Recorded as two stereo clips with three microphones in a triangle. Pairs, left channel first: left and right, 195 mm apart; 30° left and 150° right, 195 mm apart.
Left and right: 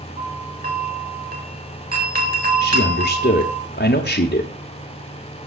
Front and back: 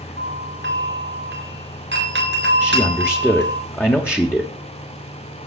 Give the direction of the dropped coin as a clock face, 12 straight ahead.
No dropped coin in this recording.